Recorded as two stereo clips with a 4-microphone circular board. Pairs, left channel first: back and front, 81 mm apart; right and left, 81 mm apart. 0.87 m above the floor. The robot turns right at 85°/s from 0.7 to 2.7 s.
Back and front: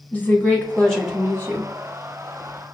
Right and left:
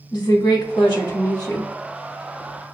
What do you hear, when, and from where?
0.1 s a woman speaking: 115° right, 1.6 m; by 1.7 s 30° right, 1.6 m